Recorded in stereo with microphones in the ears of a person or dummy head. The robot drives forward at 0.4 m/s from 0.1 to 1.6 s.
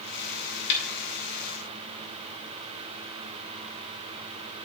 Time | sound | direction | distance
0.7 | a snare drum | 65° left (ahead or behind) | 1.9 m